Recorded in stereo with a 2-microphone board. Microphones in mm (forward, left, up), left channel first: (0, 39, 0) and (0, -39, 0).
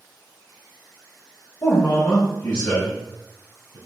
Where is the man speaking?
45° left (ahead or behind), 1.1 m.